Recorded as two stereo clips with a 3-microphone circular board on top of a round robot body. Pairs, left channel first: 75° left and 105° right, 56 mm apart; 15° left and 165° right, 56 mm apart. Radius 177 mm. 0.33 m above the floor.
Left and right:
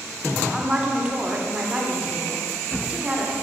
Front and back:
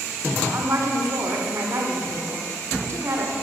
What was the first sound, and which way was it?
A woman speaking, 175° right.